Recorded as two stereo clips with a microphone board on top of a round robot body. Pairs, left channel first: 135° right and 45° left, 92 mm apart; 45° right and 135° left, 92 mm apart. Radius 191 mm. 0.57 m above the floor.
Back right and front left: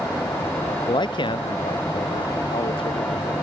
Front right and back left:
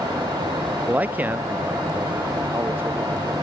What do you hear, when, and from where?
0.9 s a man speaking: 155° right; by 3.3 s 160° right